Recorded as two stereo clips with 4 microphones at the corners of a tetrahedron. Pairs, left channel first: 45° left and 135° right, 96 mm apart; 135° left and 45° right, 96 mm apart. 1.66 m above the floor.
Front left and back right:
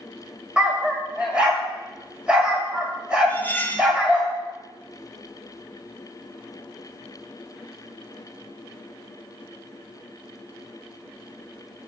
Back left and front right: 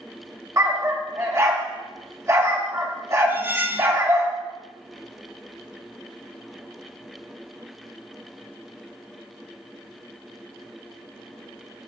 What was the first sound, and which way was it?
A dog barking, 65° right.